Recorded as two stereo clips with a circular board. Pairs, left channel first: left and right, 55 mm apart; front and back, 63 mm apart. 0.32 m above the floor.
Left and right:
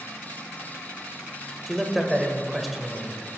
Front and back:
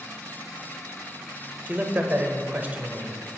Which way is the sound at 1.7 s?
175° right.